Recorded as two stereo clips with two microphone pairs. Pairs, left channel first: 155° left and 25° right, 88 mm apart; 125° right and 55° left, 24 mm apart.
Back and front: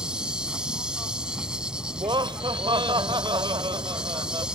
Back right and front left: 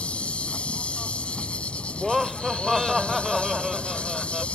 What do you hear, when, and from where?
0.0 s an insect: 105° right
1.9 s laughter: 30° right